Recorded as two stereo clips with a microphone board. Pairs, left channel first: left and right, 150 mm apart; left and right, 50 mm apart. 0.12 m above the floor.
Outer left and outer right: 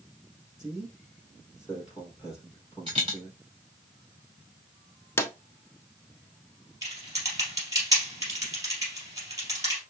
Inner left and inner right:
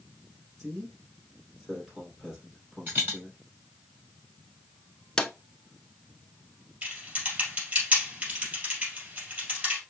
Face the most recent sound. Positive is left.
turn(degrees=-25)  # may be behind; listen again after turning